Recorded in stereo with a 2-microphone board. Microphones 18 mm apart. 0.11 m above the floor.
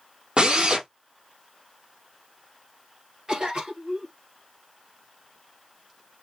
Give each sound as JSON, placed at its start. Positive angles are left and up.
{"t": 0.4, "sound": "a drill", "side_deg": -65, "distance_m": 1.9}
{"t": 3.3, "sound": "a cough", "side_deg": -50, "distance_m": 2.5}